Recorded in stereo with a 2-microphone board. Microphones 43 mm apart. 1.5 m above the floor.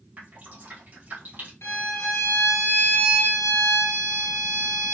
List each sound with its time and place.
0.2 s dripping: 50° right (ahead or behind), 2 m
1.6 s a violin: 85° left, 1.6 m